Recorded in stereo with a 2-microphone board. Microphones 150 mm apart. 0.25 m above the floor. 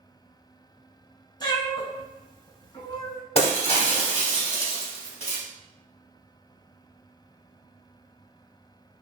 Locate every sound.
1.4 s a cat meowing: 30° left (ahead or behind), 0.6 m
3.4 s breaking glass: 40° left (ahead or behind), 0.8 m